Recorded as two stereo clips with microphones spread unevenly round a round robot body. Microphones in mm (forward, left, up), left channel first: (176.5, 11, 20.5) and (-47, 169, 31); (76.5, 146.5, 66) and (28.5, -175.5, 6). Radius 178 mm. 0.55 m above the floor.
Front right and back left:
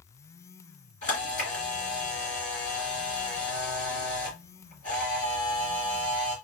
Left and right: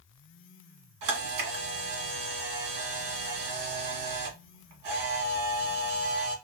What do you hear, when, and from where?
1.0 s a camera shutter: 105° right, 1.6 m